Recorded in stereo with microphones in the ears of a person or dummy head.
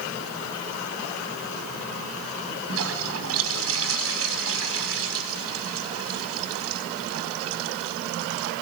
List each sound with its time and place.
2.7 s a toilet flushing: 75° right (ahead or behind), 4.5 m